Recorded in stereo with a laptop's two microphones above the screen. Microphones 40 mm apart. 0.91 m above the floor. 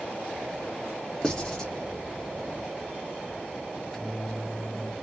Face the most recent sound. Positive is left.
turn(degrees=15)  # may be behind; listen again after turning